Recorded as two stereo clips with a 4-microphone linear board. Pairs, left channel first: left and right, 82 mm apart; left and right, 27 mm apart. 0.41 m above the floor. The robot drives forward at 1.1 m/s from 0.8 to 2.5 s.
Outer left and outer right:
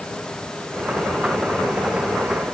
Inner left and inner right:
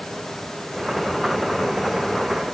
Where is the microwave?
No microwave in this recording.